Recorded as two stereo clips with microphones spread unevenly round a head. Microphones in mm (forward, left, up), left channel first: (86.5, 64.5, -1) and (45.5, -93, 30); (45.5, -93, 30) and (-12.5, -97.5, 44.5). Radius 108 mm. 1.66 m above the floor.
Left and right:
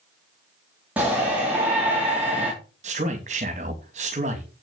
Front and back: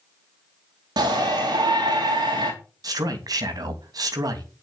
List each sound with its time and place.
1.0 s a shout: 170° left, 3 m
2.8 s a man speaking: 165° right, 2.5 m